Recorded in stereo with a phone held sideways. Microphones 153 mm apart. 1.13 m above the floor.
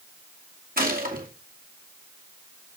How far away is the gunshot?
About 2 m.